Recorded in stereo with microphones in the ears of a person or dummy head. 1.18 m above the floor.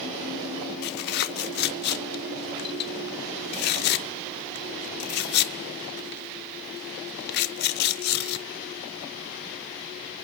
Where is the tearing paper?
50° left (ahead or behind), 0.6 m.